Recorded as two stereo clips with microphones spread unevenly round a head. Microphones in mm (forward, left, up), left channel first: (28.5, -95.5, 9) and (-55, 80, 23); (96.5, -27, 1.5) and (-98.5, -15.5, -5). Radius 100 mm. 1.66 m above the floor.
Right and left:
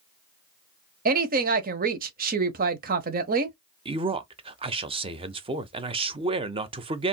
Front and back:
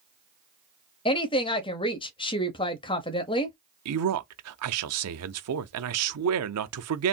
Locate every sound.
1.1 s a woman speaking: 65° left, 0.8 m
3.9 s a man speaking: straight behind, 0.7 m